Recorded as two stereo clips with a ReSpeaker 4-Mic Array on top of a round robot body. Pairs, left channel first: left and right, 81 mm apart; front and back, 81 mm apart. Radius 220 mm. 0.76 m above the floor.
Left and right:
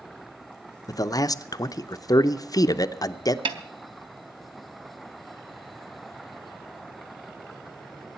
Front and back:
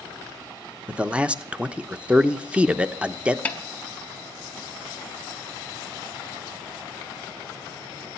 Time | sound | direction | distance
0.9 | a man speaking | 110° left | 1.0 m
3.5 | a snare drum | 70° right | 0.5 m